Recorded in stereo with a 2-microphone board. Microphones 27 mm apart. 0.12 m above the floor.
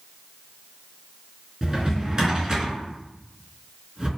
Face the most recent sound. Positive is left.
turn(degrees=-25)  # may be behind; listen again after turning